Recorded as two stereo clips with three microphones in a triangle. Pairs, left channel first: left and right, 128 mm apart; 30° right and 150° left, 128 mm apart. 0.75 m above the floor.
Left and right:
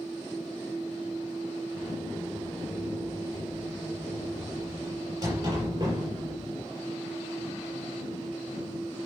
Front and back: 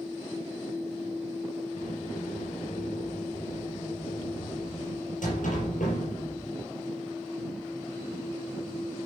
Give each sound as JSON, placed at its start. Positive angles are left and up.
{"t": 1.8, "sound": "a sliding door", "azimuth_deg": -30, "distance_m": 5.0}